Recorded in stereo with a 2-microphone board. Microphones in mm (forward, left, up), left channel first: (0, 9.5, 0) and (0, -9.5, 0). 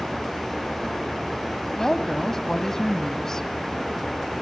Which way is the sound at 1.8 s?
25° left (ahead or behind).